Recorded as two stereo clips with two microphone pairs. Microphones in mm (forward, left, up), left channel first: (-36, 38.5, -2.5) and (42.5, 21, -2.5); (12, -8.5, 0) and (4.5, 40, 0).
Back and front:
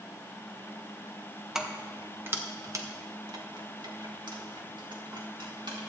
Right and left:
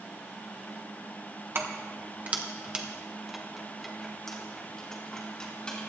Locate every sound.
1.6 s keys jangling: 70° left, 1.1 m; by 5.8 s 10° right, 2.5 m